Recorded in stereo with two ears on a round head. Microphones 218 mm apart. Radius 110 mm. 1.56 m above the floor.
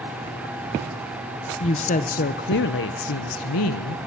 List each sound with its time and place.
1.6 s a woman speaking: 25° left (ahead or behind), 1.1 m; by 4.0 s 80° left, 1.4 m